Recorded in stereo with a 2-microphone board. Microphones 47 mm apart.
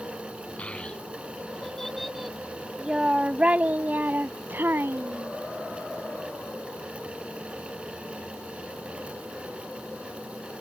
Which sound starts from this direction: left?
A child speaking, at 0.6 s.